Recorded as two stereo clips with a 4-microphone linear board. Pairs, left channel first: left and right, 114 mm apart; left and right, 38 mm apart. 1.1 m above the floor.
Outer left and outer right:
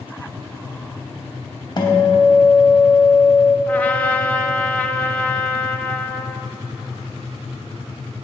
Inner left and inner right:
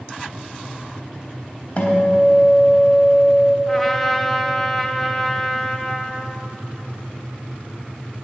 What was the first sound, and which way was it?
A guitar, 40° left (ahead or behind).